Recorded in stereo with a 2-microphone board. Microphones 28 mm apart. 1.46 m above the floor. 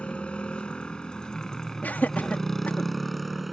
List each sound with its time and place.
0.0 s a motorcycle: 40° left (ahead or behind); by 3.5 s centre (ahead or behind)
1.8 s laughter: 80° left